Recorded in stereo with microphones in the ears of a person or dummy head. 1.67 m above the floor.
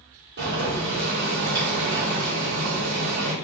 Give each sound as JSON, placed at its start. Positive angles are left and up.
{"t": 0.4, "sound": "boiling", "side_deg": -50, "distance_m": 2.0}